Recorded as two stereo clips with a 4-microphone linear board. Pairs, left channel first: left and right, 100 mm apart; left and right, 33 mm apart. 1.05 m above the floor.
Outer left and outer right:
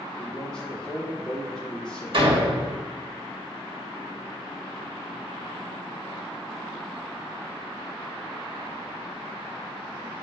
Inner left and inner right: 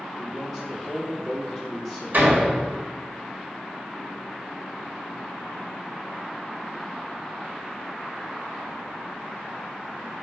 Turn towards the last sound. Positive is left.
turn(degrees=-60)  # may be behind; listen again after turning